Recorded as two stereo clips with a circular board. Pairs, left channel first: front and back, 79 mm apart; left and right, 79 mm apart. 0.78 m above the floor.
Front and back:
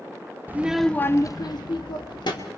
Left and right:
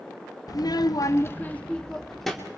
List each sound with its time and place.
0.5 s a child speaking: 115° left, 0.7 m; by 2.5 s straight ahead, 1.6 m